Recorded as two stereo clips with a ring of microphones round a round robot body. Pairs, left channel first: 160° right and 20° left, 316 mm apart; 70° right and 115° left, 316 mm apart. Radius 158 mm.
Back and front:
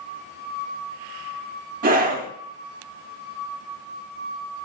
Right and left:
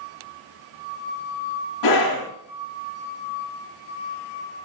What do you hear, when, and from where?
1.8 s a scream: 40° right, 2 m